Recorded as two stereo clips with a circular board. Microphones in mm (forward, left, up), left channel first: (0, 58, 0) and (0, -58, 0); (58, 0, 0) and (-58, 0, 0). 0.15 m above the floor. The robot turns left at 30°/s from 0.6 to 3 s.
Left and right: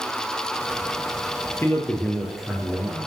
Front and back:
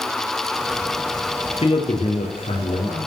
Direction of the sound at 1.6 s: 25° left.